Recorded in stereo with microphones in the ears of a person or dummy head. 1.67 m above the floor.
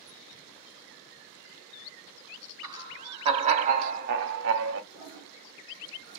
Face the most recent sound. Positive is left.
turn(degrees=-35)  # may be behind; listen again after turning